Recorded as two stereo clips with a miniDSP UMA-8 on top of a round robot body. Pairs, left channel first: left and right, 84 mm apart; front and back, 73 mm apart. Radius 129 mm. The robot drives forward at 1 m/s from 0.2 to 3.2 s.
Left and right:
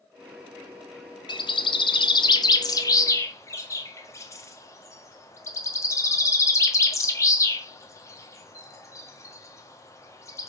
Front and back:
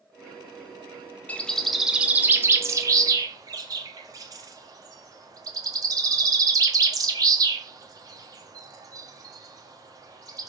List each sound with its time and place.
1.3 s a bird: 70° left, 1.3 m; by 10.5 s 145° left, 1.9 m